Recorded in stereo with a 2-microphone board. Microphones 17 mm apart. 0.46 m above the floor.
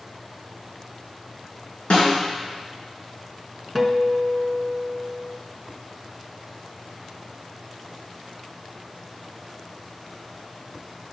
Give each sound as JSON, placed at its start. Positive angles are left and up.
{"t": 1.9, "sound": "a snare drum", "side_deg": 65, "distance_m": 3.0}
{"t": 3.8, "sound": "a guitar", "side_deg": 10, "distance_m": 0.8}